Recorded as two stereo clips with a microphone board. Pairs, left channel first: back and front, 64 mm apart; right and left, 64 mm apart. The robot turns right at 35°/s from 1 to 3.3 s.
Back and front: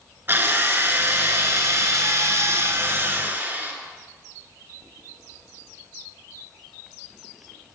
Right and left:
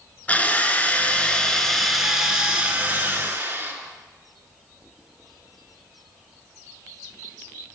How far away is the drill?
About 1.2 m.